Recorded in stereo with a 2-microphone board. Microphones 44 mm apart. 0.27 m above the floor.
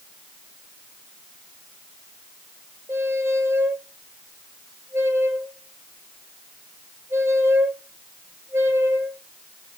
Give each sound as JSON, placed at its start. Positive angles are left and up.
{"t": 2.9, "sound": "a squeak", "side_deg": -85, "distance_m": 1.1}